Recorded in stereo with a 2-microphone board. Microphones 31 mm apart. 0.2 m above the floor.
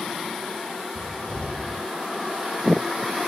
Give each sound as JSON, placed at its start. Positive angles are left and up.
{"t": 0.9, "sound": "a cupboard door", "side_deg": 35, "distance_m": 4.5}